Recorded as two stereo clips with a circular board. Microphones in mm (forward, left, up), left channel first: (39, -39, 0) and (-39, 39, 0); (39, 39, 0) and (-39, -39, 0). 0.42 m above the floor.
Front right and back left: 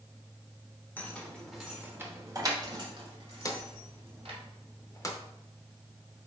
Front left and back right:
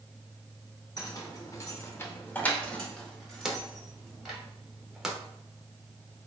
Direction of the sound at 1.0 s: 15° left.